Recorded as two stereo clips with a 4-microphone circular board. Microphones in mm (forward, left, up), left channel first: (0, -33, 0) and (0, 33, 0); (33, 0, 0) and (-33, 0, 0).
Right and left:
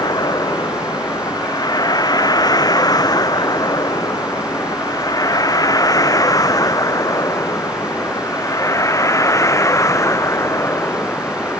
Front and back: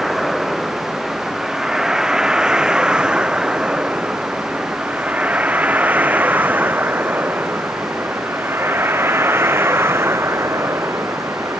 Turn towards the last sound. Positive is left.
turn(degrees=-135)